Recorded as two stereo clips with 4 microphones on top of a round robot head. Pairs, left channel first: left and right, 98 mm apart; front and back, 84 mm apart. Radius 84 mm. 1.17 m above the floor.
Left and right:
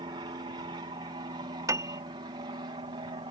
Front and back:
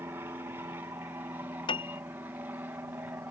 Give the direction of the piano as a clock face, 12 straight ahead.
1 o'clock.